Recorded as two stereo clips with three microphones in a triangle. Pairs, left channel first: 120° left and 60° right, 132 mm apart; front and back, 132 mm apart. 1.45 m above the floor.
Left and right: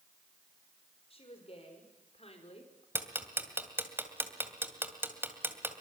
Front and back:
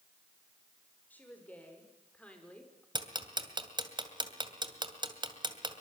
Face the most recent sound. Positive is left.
turn(degrees=-130)